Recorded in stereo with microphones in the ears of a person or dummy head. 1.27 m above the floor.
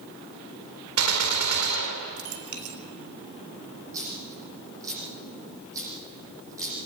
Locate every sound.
1.0 s a gunshot: 90° right, 4 m
3.9 s a dropped coin: 20° right (ahead or behind), 8 m